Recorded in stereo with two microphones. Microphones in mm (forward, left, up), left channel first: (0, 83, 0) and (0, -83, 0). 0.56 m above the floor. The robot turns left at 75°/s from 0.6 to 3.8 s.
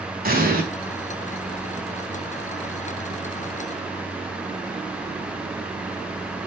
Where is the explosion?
65° right (ahead or behind), 5 m; by 0.6 s 60° right (ahead or behind), 5 m.